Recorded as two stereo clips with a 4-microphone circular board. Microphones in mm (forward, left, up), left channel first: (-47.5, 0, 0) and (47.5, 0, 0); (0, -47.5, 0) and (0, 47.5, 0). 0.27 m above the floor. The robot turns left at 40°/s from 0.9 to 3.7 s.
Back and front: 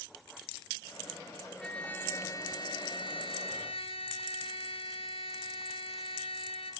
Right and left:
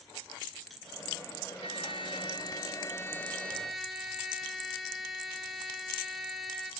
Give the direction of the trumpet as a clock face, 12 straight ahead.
3 o'clock.